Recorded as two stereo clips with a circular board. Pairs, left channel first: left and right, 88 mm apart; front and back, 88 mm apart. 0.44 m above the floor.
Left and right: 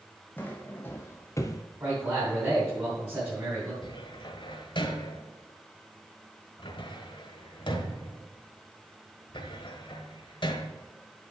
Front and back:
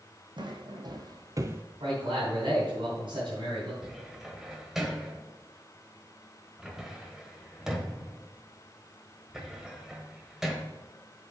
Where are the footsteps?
160° left, 1.4 m; by 1.6 s 120° left, 0.6 m.